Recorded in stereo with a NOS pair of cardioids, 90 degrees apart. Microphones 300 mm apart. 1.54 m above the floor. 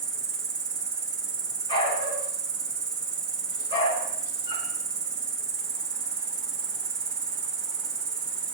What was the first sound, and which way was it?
An insect, 40° right.